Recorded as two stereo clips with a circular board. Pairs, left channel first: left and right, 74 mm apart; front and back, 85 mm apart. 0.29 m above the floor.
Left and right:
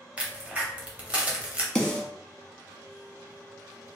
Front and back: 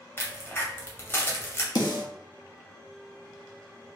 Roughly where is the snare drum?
Ahead.